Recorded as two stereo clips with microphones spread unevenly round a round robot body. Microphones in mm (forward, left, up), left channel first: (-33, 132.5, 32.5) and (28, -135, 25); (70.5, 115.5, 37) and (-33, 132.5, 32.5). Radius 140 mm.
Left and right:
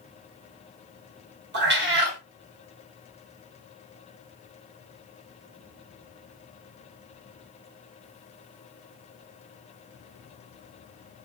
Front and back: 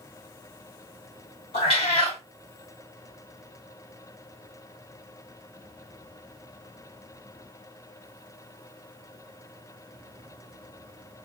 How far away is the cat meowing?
About 0.6 m.